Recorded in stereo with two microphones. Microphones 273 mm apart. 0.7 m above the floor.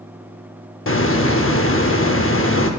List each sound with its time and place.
0.9 s a hiss: 50° left (ahead or behind), 0.7 m